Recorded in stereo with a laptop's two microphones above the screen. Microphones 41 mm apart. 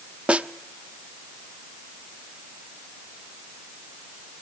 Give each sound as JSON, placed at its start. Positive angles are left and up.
{"t": 0.3, "sound": "a snare drum", "side_deg": -30, "distance_m": 0.6}